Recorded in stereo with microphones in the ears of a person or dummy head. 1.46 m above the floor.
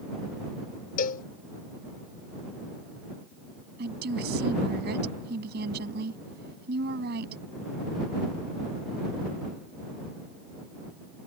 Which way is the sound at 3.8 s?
55° right (ahead or behind).